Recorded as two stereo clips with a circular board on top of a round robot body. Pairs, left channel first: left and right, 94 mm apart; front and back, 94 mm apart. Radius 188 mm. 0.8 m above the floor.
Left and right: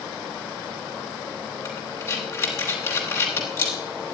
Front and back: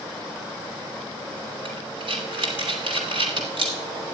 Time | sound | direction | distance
1.6 | breathing | 150° left | 0.9 m